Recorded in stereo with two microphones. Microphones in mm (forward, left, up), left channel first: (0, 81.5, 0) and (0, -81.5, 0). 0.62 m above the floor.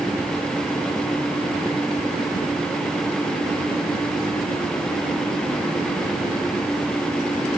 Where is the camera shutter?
I don't hear a camera shutter.